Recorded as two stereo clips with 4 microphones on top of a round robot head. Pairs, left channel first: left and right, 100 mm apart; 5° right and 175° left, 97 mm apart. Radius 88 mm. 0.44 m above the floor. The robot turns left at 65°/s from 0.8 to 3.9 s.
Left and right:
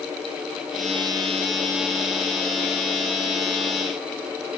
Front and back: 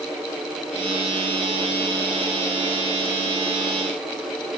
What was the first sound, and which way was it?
Only background noise.